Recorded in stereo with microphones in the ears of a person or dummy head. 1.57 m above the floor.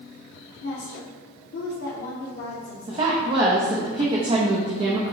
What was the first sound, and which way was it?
A woman speaking, 65° left (ahead or behind).